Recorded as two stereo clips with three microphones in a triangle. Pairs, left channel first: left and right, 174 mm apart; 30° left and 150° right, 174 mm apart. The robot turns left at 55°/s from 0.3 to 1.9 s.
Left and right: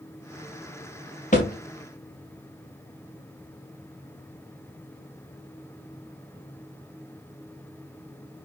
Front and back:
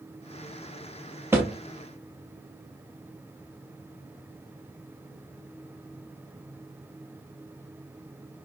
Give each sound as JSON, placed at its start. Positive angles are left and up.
{"t": 1.3, "sound": "a thud", "azimuth_deg": 135, "distance_m": 2.5}